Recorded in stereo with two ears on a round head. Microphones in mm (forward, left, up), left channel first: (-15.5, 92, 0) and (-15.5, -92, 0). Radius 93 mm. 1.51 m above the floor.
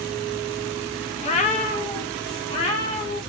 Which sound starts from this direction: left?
A cat meowing, at 1.2 s.